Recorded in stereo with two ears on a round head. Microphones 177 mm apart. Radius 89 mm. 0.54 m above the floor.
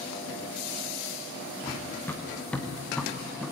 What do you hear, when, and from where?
1.6 s running footsteps: 15° left (ahead or behind), 3 m; by 3.5 s centre (ahead or behind), 3.5 m